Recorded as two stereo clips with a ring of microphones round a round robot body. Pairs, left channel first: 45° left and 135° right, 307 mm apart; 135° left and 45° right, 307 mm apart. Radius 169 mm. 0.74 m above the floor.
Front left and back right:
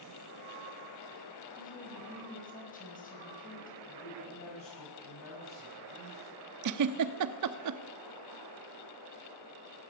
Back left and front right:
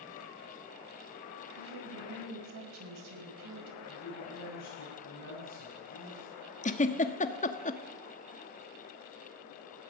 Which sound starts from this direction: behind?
A giggle, at 6.6 s.